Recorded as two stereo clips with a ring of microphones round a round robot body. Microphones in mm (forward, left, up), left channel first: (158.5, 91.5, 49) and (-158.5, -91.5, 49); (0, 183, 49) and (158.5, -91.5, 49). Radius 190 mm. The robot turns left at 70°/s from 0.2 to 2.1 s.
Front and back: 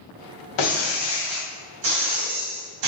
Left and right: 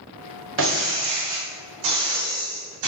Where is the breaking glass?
5° right, 2.0 m; by 2.9 s 115° right, 2.0 m.